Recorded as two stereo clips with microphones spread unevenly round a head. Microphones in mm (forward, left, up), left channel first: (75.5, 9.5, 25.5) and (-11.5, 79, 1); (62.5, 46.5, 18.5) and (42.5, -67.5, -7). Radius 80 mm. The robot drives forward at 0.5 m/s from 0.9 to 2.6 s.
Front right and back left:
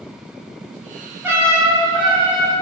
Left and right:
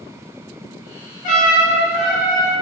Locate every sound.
1.2 s a trumpet: 70° left, 0.9 m; by 2.5 s 110° left, 0.9 m